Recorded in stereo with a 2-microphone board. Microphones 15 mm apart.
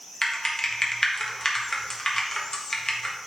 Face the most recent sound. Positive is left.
turn(degrees=40)  # may be behind; listen again after turning